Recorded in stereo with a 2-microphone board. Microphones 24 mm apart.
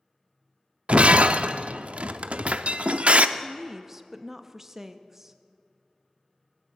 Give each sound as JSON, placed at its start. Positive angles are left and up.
{"t": 0.9, "sound": "breaking glass", "side_deg": -70, "distance_m": 0.5}
{"t": 3.4, "sound": "a woman speaking", "side_deg": -20, "distance_m": 0.6}